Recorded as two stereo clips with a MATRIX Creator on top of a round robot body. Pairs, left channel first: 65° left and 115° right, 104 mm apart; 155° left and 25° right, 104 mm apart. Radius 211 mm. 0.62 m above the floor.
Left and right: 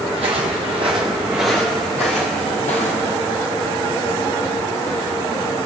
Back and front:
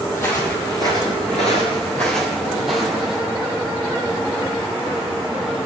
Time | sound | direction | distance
0.1 | footsteps | 140° right | 1.7 m